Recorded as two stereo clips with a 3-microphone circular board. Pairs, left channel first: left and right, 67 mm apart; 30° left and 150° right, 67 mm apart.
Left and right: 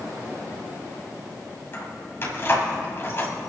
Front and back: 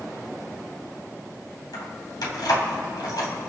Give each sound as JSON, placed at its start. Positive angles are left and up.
{"t": 1.7, "sound": "keys jangling", "azimuth_deg": 35, "distance_m": 3.0}